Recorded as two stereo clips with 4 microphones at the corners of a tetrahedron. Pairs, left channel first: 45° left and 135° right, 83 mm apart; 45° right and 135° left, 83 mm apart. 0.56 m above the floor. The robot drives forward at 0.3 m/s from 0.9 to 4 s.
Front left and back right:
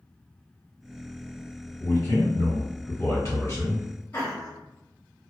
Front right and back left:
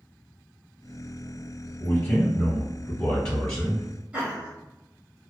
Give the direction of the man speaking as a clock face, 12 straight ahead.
11 o'clock.